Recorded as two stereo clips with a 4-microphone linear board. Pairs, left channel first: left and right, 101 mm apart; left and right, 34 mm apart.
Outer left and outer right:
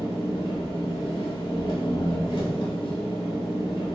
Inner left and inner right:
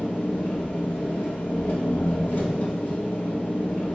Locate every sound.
0.0 s an engine running: 50° left (ahead or behind), 1.0 m